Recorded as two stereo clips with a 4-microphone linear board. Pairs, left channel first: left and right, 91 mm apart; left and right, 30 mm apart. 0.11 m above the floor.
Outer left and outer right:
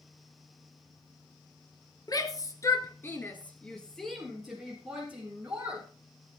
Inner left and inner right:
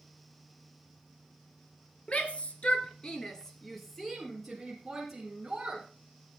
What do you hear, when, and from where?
2.1 s a shout: 45° left (ahead or behind), 1.9 m; by 5.9 s 10° right (ahead or behind), 4 m